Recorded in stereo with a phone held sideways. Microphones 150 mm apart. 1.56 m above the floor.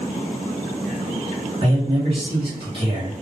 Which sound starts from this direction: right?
A man speaking, at 1.6 s.